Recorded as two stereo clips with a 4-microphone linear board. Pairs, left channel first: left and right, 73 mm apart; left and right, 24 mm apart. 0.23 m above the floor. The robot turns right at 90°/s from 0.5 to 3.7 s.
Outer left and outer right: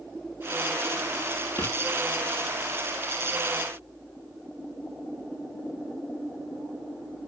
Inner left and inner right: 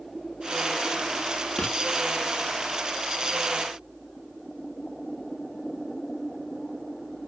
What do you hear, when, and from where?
1.6 s writing: 30° left (ahead or behind), 3 m; by 1.8 s 45° left (ahead or behind), 3 m